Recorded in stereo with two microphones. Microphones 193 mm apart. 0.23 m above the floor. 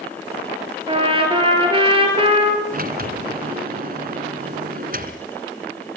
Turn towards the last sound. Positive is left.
turn(degrees=-45)  # may be behind; listen again after turning